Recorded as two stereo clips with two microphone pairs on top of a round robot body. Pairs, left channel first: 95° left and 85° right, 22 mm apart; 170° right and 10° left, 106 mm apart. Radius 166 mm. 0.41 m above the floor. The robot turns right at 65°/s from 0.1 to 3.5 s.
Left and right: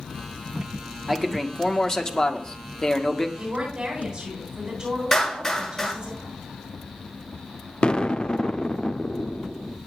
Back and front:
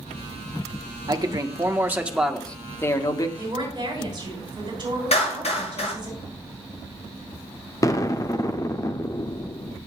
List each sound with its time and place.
1.1 s a man speaking: 15° left, 1.8 m; by 3.3 s 160° left, 1.8 m
3.4 s a woman speaking: 45° right, 8.5 m; by 6.1 s 35° right, 8.5 m
5.1 s a clap: 175° left, 10 m
7.8 s an explosion: 135° left, 1.2 m